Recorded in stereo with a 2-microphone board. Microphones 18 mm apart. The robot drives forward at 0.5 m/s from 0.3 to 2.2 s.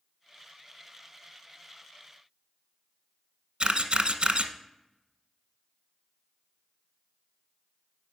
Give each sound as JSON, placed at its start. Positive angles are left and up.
{"t": 3.6, "sound": "a camera shutter", "side_deg": -80, "distance_m": 0.8}